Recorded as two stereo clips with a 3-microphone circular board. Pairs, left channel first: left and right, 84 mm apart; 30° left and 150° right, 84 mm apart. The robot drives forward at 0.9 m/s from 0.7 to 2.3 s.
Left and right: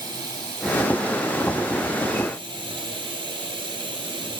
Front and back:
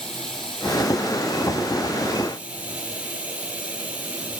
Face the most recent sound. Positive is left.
turn(degrees=-75)